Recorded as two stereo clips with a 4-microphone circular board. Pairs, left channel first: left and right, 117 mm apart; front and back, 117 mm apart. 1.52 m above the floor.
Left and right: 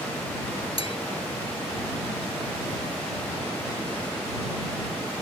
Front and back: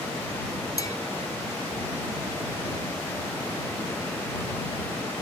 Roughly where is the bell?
Ahead left.